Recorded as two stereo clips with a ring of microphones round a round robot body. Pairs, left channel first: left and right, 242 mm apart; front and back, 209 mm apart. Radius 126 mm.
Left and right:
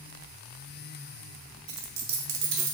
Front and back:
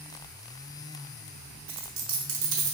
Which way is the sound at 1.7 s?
140° right.